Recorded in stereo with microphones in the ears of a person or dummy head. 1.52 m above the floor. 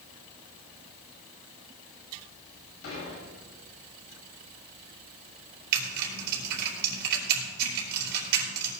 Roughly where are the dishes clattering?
Left.